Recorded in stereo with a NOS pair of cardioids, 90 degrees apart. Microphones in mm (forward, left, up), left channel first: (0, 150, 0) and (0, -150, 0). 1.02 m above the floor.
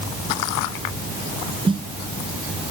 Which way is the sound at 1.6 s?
15° right.